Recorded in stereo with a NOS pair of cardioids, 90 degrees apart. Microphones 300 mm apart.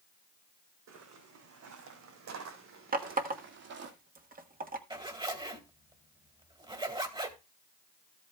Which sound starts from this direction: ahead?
A zipper, at 4.9 s.